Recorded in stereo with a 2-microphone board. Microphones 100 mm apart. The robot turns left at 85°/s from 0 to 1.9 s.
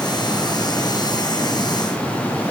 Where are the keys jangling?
No keys jangling in this recording.